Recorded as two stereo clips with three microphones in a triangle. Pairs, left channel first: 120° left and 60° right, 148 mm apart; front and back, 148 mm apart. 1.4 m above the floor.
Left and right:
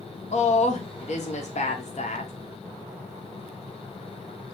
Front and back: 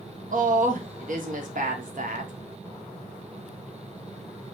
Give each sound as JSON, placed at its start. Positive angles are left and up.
{"t": 0.3, "sound": "a woman speaking", "azimuth_deg": 155, "distance_m": 1.2}